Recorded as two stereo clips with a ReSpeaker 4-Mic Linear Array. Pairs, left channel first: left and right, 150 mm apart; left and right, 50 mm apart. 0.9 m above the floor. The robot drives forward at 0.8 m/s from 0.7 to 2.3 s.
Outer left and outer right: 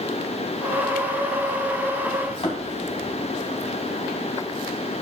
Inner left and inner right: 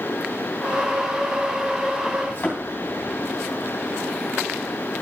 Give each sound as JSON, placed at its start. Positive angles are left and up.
{"t": 2.3, "sound": "a thud", "side_deg": 45, "distance_m": 3.0}